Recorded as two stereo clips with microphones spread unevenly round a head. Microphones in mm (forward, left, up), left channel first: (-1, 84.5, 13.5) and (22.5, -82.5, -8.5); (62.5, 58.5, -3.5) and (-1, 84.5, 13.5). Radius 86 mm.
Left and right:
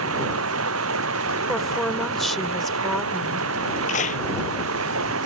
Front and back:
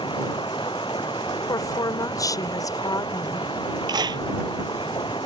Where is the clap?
150° left.